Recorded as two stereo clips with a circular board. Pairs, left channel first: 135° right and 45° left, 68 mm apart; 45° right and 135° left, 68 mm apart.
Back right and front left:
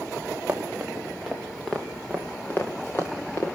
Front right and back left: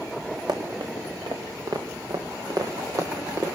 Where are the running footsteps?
115° left, 3 m; by 3.5 s straight behind, 4 m.